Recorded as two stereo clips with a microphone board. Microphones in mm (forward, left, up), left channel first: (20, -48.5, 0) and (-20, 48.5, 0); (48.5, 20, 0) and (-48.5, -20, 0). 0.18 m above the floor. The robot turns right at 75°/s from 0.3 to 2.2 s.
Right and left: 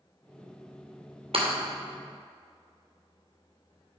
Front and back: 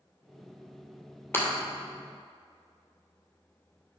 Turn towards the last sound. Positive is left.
turn(degrees=155)